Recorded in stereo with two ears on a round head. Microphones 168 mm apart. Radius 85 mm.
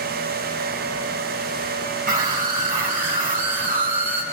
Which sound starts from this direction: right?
A scream, at 2.1 s.